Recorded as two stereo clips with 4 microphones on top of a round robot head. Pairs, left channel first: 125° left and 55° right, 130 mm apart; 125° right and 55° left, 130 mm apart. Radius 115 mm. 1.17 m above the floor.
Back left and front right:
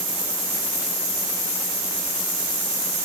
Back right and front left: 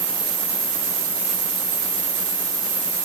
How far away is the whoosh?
I don't hear a whoosh.